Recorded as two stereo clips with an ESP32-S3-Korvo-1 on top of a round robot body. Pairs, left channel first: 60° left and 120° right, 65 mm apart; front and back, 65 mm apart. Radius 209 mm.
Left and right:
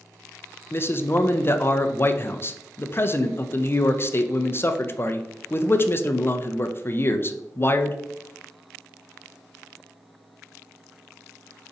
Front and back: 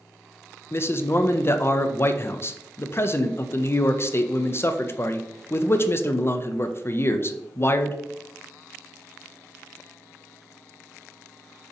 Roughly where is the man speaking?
Ahead left.